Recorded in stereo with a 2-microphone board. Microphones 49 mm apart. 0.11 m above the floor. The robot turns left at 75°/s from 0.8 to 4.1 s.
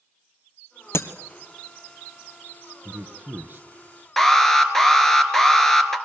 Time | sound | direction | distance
0.9 | breaking glass | 65° left (ahead or behind) | 1.2 m
2.9 | a man speaking | 55° right | 1.7 m
4.2 | an alarm | 5° left (ahead or behind) | 1.5 m